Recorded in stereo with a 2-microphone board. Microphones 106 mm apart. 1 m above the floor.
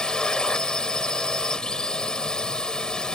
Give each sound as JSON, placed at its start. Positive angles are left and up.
{"t": 0.0, "sound": "a drone", "side_deg": 5}